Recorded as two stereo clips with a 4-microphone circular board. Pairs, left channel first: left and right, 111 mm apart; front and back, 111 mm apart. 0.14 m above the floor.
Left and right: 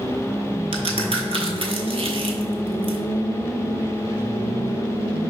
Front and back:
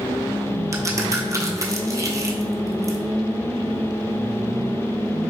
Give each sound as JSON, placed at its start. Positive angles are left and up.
{"t": 0.7, "sound": "a crack", "azimuth_deg": -120, "distance_m": 0.6}